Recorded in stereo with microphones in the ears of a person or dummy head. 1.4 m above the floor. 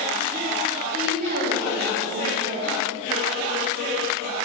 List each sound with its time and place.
0.9 s a woman speaking: 60° right (ahead or behind), 1.5 m